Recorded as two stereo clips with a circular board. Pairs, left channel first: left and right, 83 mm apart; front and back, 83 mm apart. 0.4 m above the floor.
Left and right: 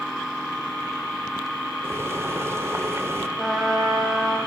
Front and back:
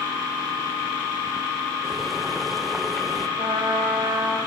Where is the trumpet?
Straight behind, 3.5 m.